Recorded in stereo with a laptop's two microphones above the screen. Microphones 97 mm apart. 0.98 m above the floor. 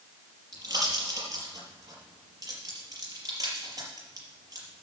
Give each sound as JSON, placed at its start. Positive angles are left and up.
{"t": 0.5, "sound": "a pop", "side_deg": -40, "distance_m": 5.0}